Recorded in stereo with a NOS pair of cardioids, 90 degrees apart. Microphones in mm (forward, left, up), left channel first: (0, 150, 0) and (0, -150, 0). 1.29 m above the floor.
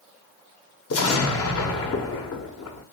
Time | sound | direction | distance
0.9 | an explosion | 50° left | 1.2 m